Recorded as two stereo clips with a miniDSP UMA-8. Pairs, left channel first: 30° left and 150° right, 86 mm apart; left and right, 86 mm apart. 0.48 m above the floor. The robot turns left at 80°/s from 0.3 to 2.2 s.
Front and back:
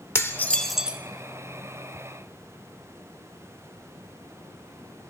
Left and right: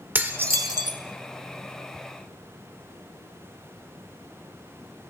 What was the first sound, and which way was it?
Dishes clattering, 25° right.